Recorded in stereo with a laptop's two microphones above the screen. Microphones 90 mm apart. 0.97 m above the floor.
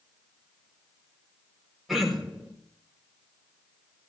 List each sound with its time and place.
1.9 s throat clearing: centre (ahead or behind), 4.5 m